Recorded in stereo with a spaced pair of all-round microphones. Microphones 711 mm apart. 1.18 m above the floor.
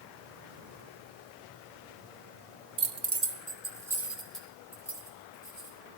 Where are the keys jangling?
45° right (ahead or behind), 0.7 m; by 5.8 s 5° left (ahead or behind), 5 m.